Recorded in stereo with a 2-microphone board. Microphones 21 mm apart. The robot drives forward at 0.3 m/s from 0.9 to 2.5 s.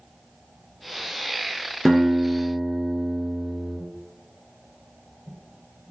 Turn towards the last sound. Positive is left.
turn(degrees=10)  # may be behind; listen again after turning